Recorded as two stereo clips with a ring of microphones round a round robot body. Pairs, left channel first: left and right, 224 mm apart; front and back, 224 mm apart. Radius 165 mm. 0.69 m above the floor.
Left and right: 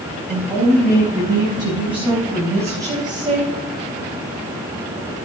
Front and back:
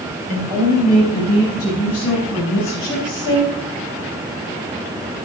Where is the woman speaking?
Straight ahead, 8 m; by 3.5 s 25° right, 4 m.